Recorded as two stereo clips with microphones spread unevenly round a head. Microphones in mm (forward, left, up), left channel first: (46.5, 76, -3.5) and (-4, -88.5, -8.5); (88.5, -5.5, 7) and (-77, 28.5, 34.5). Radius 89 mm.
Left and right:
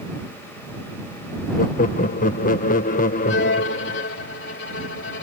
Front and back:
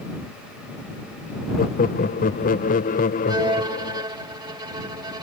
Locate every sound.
1.6 s laughter: 30° left
3.3 s a violin: 105° left